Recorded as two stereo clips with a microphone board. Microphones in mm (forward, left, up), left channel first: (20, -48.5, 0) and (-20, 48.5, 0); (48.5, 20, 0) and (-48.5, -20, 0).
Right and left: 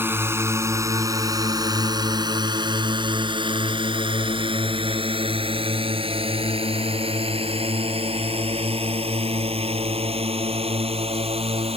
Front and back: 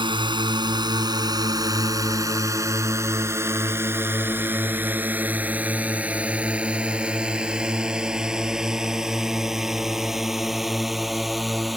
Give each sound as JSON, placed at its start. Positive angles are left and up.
{"t": 0.0, "sound": "a drone", "azimuth_deg": 175}